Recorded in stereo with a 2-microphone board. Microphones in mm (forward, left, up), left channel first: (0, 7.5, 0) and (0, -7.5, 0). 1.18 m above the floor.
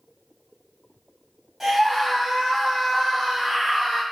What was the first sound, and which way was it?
A scream, 20° right (ahead or behind).